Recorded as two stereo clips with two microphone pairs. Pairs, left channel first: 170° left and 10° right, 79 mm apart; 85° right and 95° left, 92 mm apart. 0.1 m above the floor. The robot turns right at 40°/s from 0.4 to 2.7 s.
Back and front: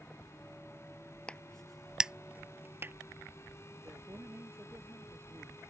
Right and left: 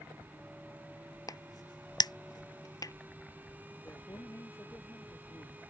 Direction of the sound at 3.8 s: 45° right.